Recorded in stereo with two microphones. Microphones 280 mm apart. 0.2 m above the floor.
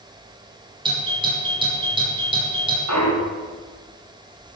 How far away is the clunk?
About 5 m.